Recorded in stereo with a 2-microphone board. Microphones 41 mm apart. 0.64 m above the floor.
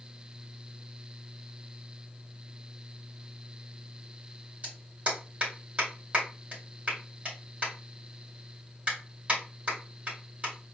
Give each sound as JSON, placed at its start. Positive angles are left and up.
{"t": 4.6, "sound": "a clap", "side_deg": -35, "distance_m": 2.5}